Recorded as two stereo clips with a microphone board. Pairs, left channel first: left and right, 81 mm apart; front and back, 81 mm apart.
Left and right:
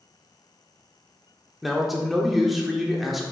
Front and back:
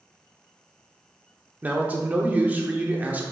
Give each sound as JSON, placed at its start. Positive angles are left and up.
{"t": 1.6, "sound": "a man speaking", "azimuth_deg": -170, "distance_m": 0.7}